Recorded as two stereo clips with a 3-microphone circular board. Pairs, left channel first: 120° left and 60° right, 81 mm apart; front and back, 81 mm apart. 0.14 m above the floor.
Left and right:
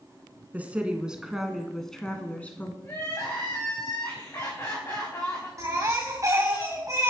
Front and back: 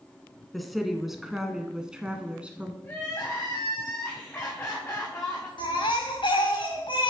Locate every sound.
0.5 s a woman speaking: 90° right, 1.6 m; by 2.7 s 135° left, 1.6 m
2.8 s crying: 65° left, 5 m
5.6 s a baby crying: 10° right, 5 m